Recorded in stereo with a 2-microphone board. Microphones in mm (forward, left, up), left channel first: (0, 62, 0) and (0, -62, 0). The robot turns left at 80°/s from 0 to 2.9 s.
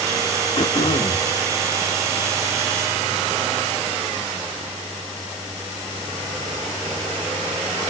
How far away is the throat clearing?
About 0.9 m.